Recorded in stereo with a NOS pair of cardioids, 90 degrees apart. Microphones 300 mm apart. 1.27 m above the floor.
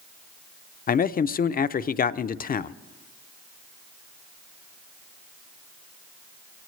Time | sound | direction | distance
0.9 | a man speaking | 30° left | 0.5 m